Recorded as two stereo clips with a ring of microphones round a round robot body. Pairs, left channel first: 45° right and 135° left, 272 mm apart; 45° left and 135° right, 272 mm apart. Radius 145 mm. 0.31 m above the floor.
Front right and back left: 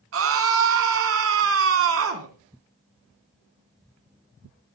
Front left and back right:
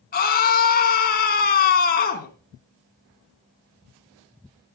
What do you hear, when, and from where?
0.1 s a scream: 100° left, 4 m